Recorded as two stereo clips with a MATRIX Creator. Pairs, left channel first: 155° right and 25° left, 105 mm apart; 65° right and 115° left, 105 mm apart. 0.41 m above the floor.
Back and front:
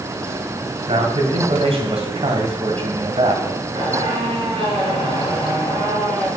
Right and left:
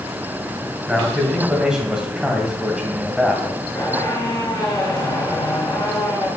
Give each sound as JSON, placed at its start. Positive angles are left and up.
{"t": 0.9, "sound": "a man speaking", "azimuth_deg": 25, "distance_m": 1.7}
{"t": 3.8, "sound": "a squeak", "azimuth_deg": -15, "distance_m": 2.5}